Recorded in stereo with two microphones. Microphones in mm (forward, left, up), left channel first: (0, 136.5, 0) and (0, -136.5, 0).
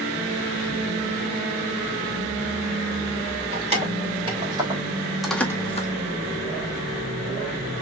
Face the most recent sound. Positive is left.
turn(degrees=30)  # may be behind; listen again after turning